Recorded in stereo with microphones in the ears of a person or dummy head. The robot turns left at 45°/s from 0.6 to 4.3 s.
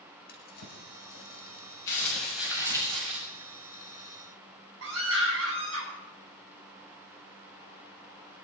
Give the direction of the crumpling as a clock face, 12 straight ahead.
11 o'clock.